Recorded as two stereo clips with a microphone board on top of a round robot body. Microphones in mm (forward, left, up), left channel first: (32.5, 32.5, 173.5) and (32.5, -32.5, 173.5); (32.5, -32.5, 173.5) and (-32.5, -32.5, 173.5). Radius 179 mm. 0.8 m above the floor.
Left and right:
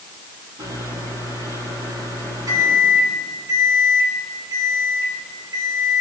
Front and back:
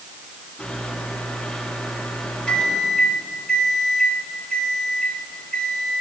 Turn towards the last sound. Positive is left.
turn(degrees=-80)